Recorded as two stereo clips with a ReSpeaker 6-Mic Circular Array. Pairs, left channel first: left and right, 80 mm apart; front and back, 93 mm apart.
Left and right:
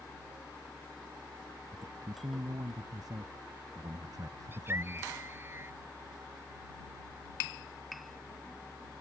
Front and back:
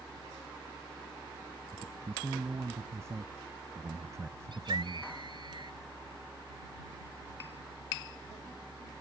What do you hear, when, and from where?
1.7 s a man speaking: 120° right; by 5.1 s 130° right
4.5 s a scream: 150° right